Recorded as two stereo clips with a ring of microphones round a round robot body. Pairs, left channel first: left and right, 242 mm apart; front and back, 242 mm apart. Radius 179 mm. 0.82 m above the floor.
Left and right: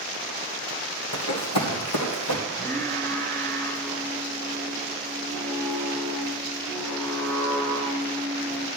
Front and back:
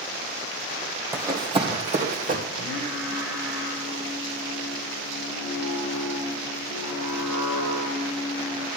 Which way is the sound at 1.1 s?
100° left.